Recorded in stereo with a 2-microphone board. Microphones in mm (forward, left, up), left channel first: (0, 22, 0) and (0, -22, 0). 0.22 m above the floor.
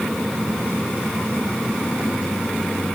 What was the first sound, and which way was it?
Only background noise.